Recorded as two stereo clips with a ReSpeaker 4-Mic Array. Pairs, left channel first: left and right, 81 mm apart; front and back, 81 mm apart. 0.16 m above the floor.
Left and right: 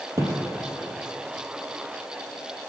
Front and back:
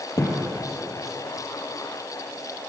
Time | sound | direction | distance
0.2 | a thud | 40° right | 1.6 m